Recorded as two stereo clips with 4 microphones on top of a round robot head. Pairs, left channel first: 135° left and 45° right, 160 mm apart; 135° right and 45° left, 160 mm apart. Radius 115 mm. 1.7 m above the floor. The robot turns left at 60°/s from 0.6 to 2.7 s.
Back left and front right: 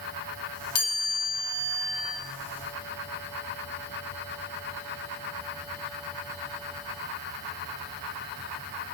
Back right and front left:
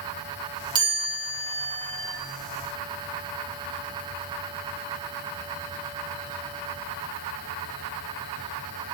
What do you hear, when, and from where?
0.8 s a chime: 110° left, 6 m; by 2.1 s 25° left, 6 m